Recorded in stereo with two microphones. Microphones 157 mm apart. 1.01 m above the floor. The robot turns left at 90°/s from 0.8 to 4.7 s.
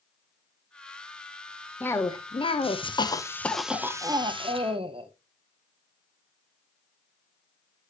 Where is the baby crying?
No baby crying in this recording.